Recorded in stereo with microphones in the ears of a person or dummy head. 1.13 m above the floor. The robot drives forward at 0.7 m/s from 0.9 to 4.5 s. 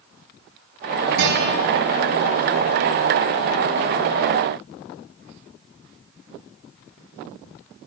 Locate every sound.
1.2 s a guitar: 60° right (ahead or behind), 5 m